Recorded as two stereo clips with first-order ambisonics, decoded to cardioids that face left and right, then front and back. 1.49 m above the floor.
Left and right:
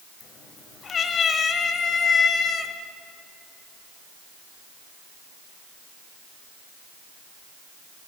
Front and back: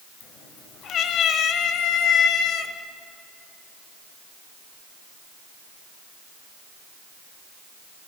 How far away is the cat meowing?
About 1.9 m.